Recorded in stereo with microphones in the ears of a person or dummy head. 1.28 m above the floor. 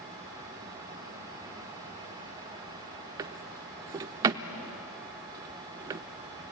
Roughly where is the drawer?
Right.